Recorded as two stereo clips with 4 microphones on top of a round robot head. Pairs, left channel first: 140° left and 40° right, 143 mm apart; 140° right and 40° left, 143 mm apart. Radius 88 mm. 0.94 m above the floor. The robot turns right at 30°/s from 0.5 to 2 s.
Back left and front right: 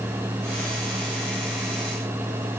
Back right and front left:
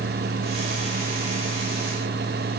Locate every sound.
Only background noise.